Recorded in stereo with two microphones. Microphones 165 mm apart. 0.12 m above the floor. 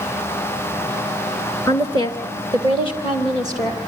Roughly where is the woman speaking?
Centre.